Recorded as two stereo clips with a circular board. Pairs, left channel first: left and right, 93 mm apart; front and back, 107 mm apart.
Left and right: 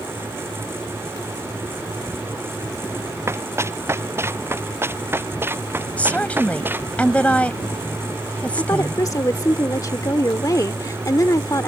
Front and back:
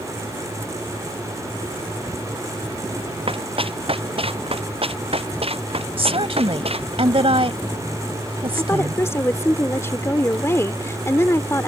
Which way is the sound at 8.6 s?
55° left.